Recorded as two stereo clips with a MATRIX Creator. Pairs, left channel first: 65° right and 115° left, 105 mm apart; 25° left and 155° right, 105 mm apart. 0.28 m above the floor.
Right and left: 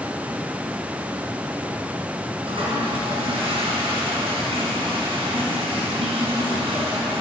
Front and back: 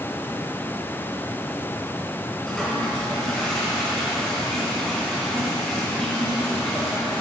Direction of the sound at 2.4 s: 110° left.